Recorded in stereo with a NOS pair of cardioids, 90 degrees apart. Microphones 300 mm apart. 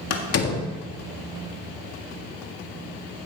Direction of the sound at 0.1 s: 55° left.